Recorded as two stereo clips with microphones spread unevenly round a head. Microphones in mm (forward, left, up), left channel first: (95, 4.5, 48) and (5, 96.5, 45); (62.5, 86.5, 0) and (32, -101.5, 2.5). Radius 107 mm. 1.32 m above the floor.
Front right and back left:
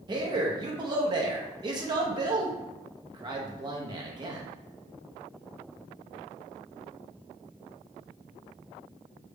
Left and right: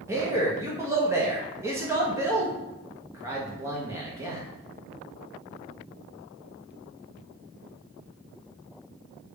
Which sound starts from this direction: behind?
A man speaking, at 0.1 s.